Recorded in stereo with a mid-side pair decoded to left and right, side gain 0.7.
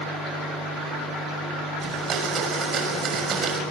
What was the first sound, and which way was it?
A blender, 35° right.